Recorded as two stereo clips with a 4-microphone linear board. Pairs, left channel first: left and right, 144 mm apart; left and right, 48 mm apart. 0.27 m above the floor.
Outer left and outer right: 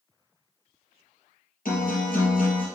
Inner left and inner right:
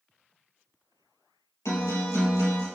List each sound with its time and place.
1.6 s a guitar: 85° left, 3 m